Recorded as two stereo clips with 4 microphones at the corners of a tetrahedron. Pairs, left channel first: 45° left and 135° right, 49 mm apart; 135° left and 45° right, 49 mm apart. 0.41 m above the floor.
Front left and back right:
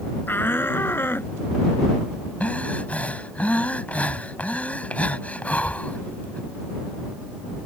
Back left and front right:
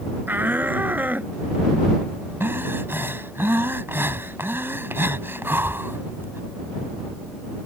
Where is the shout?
5° left; by 1.3 s 10° left.